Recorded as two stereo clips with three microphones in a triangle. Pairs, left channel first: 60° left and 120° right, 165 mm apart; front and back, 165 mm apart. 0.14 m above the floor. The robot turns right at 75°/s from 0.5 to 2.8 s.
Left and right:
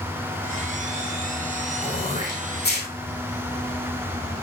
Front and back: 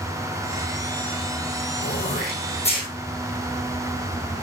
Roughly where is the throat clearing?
Ahead.